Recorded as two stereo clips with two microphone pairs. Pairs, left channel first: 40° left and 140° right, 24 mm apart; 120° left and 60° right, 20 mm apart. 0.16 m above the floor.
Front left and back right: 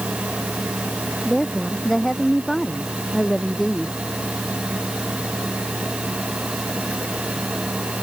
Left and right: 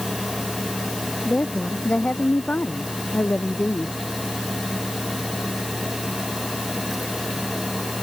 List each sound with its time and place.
1.2 s a woman speaking: 120° left